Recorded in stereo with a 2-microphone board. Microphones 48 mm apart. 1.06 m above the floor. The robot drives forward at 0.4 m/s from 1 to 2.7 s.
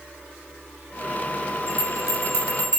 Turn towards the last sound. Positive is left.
turn(degrees=70)  # may be behind; listen again after turning